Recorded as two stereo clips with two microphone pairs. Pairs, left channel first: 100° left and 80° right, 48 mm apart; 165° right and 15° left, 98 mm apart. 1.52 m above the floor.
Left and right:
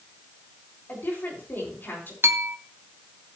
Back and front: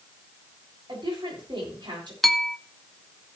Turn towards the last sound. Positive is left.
turn(degrees=-75)